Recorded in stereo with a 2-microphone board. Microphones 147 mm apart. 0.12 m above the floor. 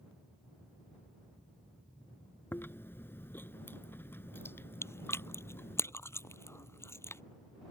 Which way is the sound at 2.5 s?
15° left (ahead or behind).